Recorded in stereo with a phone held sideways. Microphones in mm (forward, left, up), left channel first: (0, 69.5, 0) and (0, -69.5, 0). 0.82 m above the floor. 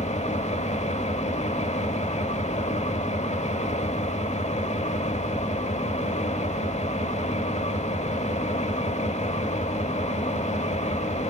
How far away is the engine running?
About 1.3 m.